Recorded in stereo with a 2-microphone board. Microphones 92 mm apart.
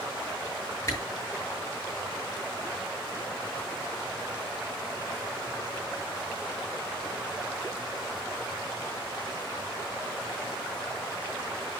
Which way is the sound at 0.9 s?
35° left (ahead or behind).